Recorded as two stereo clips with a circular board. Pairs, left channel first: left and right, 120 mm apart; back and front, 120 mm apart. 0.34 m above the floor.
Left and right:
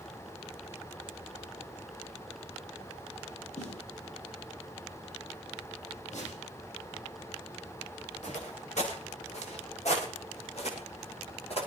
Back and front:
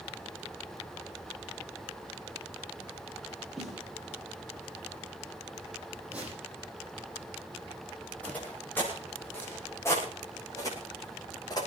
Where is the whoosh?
80° left, 7.5 m.